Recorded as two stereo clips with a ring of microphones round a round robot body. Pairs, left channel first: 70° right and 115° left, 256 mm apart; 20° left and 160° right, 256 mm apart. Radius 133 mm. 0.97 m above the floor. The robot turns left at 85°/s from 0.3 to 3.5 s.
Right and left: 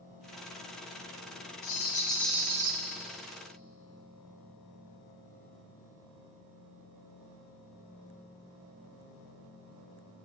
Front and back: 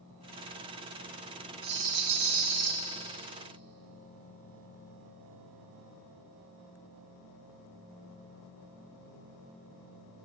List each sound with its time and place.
1.6 s a rattle: 100° right, 1.4 m; by 2.7 s 165° left, 1.4 m